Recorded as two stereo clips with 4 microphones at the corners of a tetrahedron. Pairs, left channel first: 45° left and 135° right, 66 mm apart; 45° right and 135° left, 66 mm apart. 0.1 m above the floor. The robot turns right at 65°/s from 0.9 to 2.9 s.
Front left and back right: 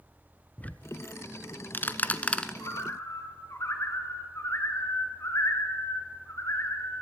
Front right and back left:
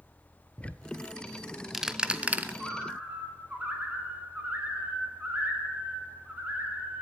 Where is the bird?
55° left, 1.8 m; by 7.0 s 75° left, 1.8 m.